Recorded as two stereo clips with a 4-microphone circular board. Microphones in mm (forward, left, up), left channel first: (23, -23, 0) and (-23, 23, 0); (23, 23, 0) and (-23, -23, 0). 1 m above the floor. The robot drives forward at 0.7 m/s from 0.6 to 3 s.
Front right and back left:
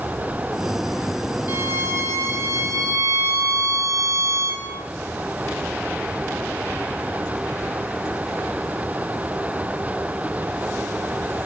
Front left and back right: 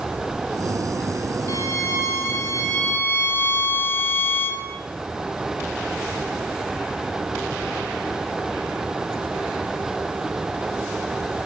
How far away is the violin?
About 4 m.